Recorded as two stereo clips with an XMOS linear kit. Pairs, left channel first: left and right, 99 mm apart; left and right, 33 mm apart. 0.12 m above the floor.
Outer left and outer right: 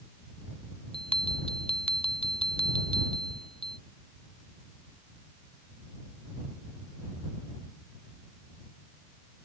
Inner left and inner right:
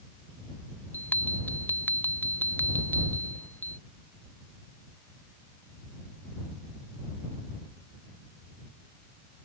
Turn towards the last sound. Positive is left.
turn(degrees=70)  # may be behind; listen again after turning